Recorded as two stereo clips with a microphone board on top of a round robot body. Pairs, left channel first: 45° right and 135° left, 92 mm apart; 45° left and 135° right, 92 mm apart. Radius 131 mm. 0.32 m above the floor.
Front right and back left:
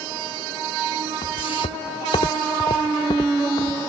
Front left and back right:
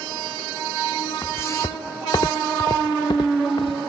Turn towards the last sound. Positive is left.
turn(degrees=5)